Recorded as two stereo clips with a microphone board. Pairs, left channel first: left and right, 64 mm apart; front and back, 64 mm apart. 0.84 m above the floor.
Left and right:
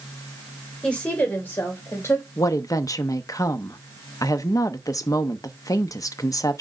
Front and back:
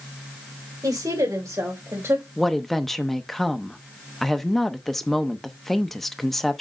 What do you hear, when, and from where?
0.8 s a woman speaking: 165° left, 3.5 m; by 2.3 s 130° left, 3 m
2.4 s a woman speaking: 85° left, 0.8 m